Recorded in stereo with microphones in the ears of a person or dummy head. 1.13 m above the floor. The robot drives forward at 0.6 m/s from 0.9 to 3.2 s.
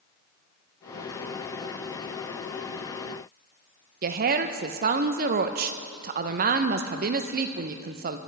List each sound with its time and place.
4.0 s a woman speaking: 45° right (ahead or behind), 0.7 m